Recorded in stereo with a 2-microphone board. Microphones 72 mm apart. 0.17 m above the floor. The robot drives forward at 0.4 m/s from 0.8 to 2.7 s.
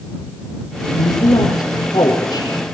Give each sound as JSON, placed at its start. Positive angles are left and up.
{"t": 1.0, "sound": "a woman speaking", "side_deg": 65, "distance_m": 3.5}